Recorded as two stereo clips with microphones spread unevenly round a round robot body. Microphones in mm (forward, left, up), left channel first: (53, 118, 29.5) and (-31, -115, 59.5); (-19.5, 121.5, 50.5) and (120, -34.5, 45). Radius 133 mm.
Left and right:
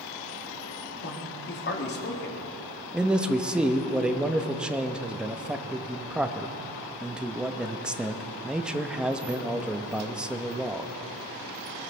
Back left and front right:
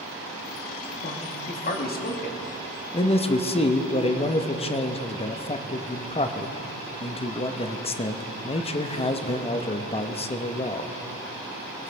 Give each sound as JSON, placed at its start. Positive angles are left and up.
{"t": 1.0, "sound": "a man speaking", "azimuth_deg": 100, "distance_m": 1.9}
{"t": 2.9, "sound": "a man speaking", "azimuth_deg": 155, "distance_m": 0.8}